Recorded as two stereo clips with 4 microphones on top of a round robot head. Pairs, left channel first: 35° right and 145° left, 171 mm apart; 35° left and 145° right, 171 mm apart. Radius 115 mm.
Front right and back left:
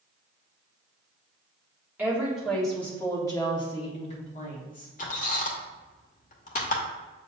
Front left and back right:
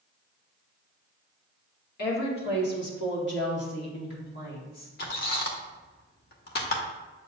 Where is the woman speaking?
65° left, 2 m; by 4.9 s straight ahead, 2.5 m.